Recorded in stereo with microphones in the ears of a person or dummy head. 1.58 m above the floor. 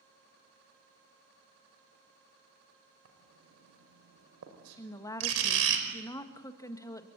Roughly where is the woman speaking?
Centre.